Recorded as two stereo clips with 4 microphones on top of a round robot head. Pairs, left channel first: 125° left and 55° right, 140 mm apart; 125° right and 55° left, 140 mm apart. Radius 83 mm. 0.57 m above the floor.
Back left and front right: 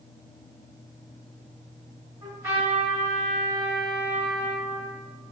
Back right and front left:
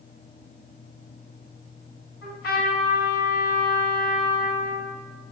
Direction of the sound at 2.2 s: 125° right.